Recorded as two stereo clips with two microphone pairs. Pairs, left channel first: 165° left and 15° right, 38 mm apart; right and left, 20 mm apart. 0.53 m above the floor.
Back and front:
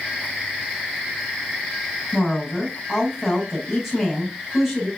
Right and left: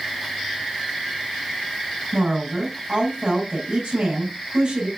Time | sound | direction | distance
2.1 | a woman speaking | 70° left | 3.5 m